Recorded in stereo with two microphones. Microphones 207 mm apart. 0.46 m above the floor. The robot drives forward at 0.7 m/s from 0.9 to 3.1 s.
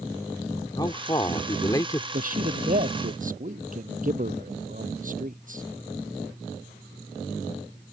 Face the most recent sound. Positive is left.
turn(degrees=-45)  # may be behind; listen again after turning